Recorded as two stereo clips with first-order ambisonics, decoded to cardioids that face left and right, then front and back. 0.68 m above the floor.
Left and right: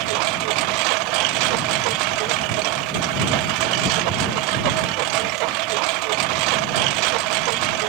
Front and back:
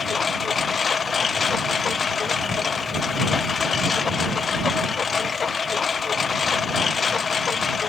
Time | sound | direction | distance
0.0 | a lawn mower | 70° right | ?